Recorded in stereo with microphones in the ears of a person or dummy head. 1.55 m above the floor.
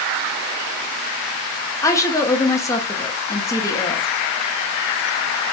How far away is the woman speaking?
About 0.8 m.